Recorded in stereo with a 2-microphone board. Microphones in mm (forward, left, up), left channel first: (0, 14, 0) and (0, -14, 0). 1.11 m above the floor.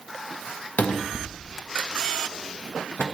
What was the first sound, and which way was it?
A cupboard door, 65° left (ahead or behind).